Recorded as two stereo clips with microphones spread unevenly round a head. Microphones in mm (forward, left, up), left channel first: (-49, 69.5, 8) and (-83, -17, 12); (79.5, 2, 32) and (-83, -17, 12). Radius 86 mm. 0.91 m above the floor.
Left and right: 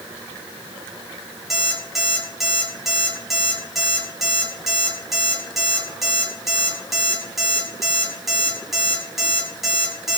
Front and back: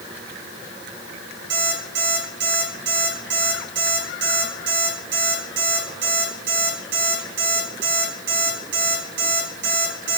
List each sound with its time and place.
1.5 s an alarm clock: 160° left, 4.5 m